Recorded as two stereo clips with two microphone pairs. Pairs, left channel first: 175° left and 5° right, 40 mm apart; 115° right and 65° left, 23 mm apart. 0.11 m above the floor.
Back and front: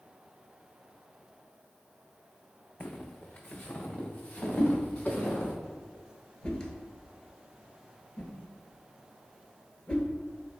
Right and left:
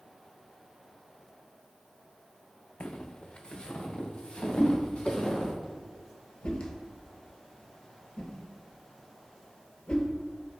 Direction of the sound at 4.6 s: 130° right.